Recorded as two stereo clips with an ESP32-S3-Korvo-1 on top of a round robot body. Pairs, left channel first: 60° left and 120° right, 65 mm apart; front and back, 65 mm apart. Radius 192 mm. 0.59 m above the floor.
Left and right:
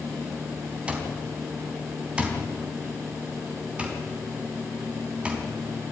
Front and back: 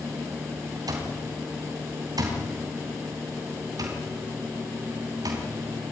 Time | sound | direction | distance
0.9 | an alarm clock | 170° left | 3.5 m